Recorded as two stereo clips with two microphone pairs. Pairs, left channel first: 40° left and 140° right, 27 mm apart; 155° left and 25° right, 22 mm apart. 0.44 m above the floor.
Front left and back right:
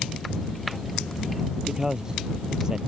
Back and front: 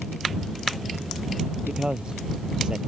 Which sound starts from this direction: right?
A man speaking, at 1.7 s.